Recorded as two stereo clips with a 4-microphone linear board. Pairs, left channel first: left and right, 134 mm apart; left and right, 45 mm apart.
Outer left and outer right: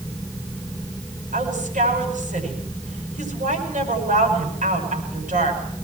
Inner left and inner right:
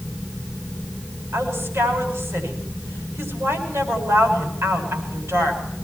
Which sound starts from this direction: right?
A woman speaking, at 1.3 s.